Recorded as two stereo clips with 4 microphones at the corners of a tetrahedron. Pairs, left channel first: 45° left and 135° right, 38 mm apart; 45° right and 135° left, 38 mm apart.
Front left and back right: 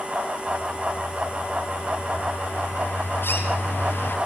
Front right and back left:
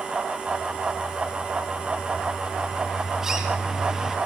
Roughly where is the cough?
No cough in this recording.